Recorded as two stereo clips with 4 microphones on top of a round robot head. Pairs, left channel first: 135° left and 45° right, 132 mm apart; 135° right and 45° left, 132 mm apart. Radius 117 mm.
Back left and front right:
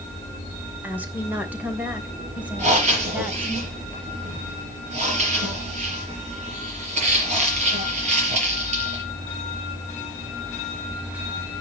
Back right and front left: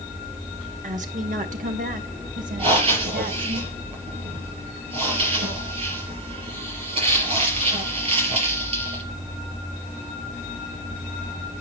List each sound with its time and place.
0.8 s a woman speaking: 30° left, 2.5 m; by 3.6 s 35° left, 4.5 m
2.6 s breathing: 5° right, 5 m